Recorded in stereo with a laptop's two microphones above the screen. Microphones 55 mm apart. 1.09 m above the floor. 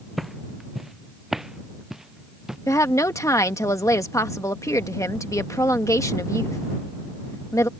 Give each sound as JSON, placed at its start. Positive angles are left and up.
{"t": 0.2, "sound": "footsteps", "side_deg": -5}
{"t": 2.7, "sound": "a woman speaking", "side_deg": 75}